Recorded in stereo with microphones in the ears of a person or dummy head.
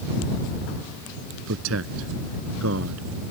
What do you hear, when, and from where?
1.5 s a man speaking: 85° right